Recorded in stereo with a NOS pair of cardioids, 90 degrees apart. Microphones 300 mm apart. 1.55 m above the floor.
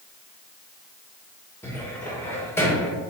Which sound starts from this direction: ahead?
A cupboard door, at 1.6 s.